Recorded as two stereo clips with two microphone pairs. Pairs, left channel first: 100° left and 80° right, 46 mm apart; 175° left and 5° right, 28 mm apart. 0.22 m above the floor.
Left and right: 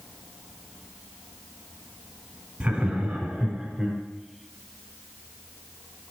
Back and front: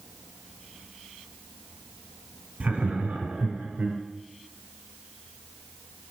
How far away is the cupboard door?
I don't hear a cupboard door.